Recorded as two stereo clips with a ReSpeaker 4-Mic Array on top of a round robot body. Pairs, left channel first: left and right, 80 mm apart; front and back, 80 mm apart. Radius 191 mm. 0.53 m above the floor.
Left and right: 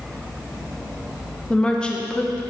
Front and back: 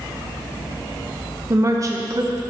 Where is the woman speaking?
160° left, 0.8 m.